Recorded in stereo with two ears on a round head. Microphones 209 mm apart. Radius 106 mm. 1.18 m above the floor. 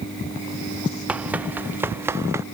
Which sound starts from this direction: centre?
Running footsteps, at 1.1 s.